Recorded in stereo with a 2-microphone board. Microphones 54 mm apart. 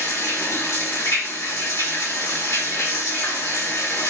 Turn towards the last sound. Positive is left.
turn(degrees=85)